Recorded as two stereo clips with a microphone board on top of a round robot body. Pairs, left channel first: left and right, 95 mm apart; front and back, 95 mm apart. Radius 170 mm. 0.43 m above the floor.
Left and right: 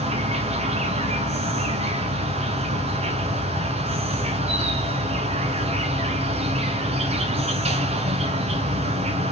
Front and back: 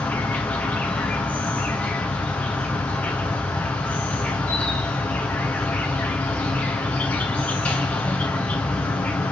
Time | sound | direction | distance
0.0 | an insect | 75° right | 1.0 m